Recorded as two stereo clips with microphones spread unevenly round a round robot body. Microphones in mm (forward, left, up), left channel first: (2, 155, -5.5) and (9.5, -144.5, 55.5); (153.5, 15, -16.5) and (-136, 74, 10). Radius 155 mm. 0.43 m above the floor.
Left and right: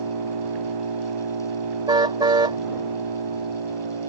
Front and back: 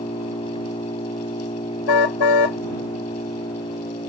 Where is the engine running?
85° right.